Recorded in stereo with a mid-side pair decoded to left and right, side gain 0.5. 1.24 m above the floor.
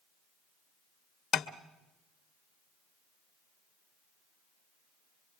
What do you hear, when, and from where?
1.3 s tapping: 50° left, 1.3 m